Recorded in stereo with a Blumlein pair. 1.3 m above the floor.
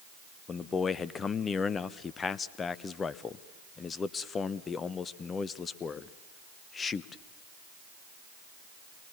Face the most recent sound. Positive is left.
turn(degrees=20)